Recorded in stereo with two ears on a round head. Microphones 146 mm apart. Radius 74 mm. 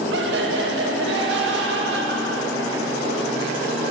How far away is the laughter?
About 1.9 m.